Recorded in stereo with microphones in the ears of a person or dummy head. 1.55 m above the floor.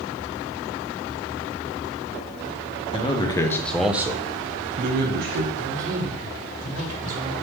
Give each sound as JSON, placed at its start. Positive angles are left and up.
{"t": 2.9, "sound": "a man speaking", "side_deg": 25, "distance_m": 1.2}
{"t": 5.5, "sound": "a man speaking", "side_deg": -45, "distance_m": 2.5}